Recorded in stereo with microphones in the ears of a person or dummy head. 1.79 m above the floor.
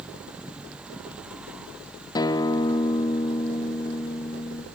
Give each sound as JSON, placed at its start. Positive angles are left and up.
{"t": 2.1, "sound": "a guitar", "side_deg": 25, "distance_m": 0.7}